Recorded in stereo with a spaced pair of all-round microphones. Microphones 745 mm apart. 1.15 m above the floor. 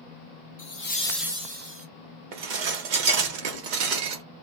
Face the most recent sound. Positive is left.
turn(degrees=-75)  # may be behind; listen again after turning